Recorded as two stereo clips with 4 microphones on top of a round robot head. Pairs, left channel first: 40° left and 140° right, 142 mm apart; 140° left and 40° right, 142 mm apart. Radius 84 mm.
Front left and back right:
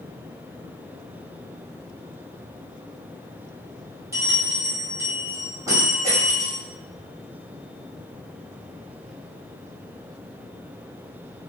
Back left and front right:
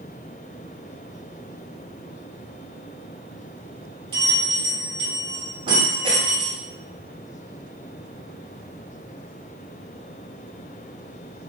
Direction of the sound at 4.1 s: 80° right.